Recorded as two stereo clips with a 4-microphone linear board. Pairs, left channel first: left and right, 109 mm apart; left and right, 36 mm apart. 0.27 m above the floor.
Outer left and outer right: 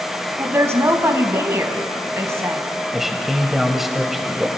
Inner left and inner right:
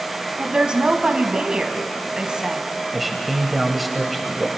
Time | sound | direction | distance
0.4 | a woman speaking | 25° right (ahead or behind) | 1.9 m
2.9 | a man speaking | 5° right (ahead or behind) | 1.5 m